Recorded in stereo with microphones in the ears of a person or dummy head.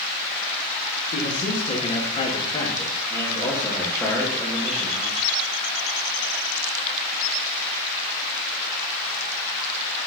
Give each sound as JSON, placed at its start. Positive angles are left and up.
{"t": 1.1, "sound": "a man speaking", "side_deg": 45, "distance_m": 2.5}